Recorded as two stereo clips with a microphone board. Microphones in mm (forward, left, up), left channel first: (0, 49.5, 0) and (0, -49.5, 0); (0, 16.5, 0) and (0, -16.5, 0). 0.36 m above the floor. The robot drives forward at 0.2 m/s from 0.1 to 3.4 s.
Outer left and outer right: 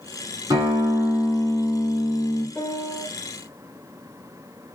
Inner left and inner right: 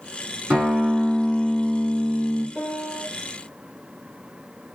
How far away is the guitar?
About 1.4 m.